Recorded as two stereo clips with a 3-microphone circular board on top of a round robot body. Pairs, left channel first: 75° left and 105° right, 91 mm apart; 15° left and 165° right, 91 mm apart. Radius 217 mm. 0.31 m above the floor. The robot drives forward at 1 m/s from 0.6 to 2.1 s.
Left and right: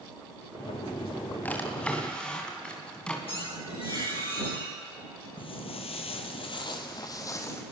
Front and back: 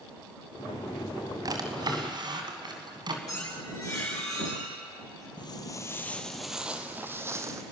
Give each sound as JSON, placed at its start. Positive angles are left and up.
{"t": 1.4, "sound": "a drawer", "azimuth_deg": 150, "distance_m": 2.0}
{"t": 3.3, "sound": "a squeak", "azimuth_deg": 65, "distance_m": 8.5}
{"t": 5.4, "sound": "footsteps", "azimuth_deg": 50, "distance_m": 0.7}